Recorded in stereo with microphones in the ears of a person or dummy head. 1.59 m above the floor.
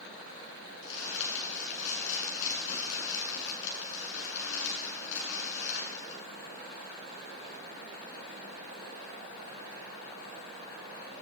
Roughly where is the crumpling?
Left.